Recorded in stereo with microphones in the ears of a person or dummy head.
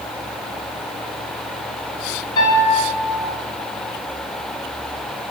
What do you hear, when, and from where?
2.4 s a piano: 25° left (ahead or behind), 1.3 m